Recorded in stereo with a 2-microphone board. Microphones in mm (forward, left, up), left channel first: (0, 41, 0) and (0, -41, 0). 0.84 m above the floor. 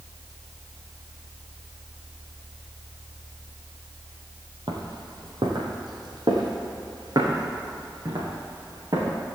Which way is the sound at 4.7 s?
65° right (ahead or behind).